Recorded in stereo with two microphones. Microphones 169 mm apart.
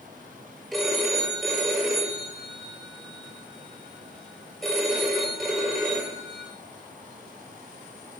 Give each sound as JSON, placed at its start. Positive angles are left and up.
{"t": 0.7, "sound": "a phone ringing", "side_deg": 0, "distance_m": 4.0}